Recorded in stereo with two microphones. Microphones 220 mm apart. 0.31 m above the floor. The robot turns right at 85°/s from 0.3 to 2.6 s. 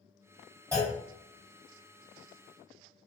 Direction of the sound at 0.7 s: 15° right (ahead or behind).